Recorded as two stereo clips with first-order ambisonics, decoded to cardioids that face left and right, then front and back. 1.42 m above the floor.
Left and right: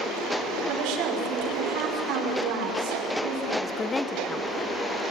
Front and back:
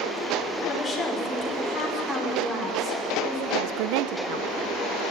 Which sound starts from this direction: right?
A woman speaking, at 0.7 s.